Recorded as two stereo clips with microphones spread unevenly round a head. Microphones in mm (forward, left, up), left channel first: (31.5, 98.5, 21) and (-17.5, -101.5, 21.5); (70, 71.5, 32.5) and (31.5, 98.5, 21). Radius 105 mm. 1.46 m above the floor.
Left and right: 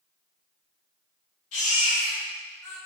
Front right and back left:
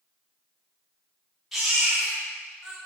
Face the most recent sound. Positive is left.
turn(degrees=55)